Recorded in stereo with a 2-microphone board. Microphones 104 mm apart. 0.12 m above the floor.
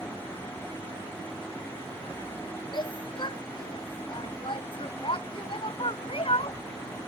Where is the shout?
45° left (ahead or behind); by 6.6 s 60° left (ahead or behind).